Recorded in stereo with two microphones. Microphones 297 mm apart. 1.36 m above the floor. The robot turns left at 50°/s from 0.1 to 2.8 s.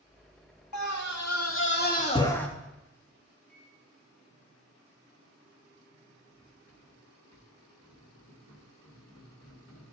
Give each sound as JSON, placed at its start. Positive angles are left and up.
{"t": 0.7, "sound": "a scream", "azimuth_deg": 90, "distance_m": 2.5}
{"t": 3.5, "sound": "a microwave", "side_deg": 5, "distance_m": 4.5}
{"t": 6.3, "sound": "cutlery clinking", "side_deg": 70, "distance_m": 2.5}